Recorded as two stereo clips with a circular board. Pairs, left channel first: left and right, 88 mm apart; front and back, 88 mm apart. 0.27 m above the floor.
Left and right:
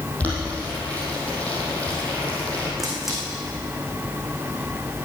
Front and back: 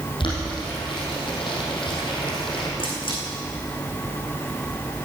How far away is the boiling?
About 4 m.